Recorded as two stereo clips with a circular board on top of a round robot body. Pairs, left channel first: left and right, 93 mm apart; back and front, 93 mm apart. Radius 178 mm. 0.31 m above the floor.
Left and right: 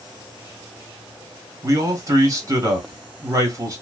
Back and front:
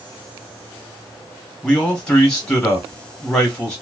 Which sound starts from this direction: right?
A man speaking, at 1.6 s.